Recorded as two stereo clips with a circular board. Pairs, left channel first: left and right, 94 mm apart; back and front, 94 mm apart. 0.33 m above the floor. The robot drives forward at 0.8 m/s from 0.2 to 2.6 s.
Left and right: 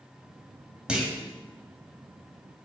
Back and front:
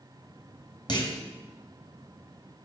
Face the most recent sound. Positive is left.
turn(degrees=-175)